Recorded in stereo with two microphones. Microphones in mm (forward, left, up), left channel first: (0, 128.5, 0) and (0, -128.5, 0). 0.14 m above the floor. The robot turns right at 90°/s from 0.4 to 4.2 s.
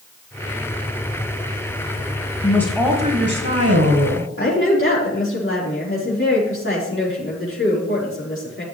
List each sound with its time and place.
2.4 s a woman speaking: 155° left, 2.5 m; by 4.3 s 45° right, 2.5 m
4.4 s a woman speaking: 55° left (ahead or behind), 5 m